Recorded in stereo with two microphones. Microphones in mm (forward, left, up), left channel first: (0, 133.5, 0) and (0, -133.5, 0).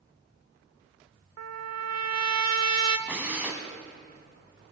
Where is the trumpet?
80° right, 0.6 m.